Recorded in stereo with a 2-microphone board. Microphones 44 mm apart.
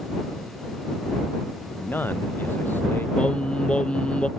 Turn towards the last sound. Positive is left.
turn(degrees=25)  # may be behind; listen again after turning